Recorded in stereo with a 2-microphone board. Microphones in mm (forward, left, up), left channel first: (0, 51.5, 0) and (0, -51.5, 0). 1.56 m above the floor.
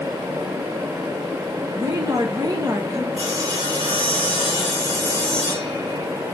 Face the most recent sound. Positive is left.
turn(degrees=-65)  # may be behind; listen again after turning